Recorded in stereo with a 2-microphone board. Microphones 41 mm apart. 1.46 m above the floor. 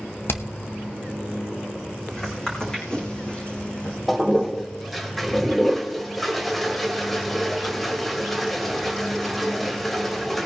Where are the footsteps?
10° left (ahead or behind), 5 m; by 4.0 s 35° left (ahead or behind), 5.5 m.